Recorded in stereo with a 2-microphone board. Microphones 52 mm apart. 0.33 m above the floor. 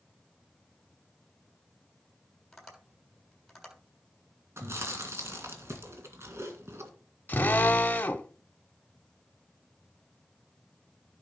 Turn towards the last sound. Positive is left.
turn(degrees=35)  # may be behind; listen again after turning